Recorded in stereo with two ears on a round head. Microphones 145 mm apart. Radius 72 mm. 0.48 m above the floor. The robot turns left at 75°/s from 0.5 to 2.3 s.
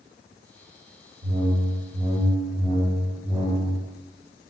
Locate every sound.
1.2 s a whoosh: 95° right, 1.1 m; by 3.8 s 175° right, 1.1 m